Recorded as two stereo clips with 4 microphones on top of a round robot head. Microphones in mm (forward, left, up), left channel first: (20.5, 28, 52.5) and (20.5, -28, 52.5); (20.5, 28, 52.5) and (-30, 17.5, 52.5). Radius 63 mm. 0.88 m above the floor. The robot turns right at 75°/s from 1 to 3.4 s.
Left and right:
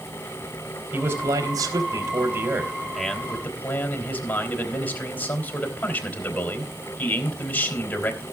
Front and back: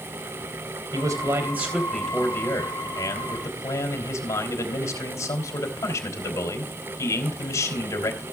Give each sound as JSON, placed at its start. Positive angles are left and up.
{"t": 0.9, "sound": "a man speaking", "azimuth_deg": -155, "distance_m": 3.0}